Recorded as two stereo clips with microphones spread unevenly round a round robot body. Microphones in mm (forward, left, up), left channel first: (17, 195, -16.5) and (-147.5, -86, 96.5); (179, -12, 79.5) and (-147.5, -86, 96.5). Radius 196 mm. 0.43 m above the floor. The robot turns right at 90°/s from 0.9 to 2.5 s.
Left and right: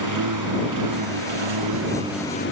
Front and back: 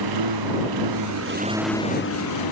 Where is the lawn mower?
150° right; by 2.5 s straight ahead.